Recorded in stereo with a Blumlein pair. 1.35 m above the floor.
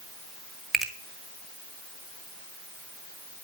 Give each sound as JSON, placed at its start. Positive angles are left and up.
{"t": 0.7, "sound": "a finger snap", "azimuth_deg": -10, "distance_m": 1.2}